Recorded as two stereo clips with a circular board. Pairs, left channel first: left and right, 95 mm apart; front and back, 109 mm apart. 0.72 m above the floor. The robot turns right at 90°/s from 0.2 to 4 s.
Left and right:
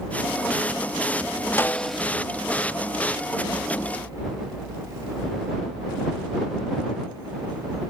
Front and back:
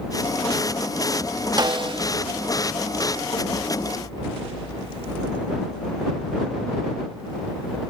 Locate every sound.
1.6 s a snare drum: 145° left; by 2.0 s 170° right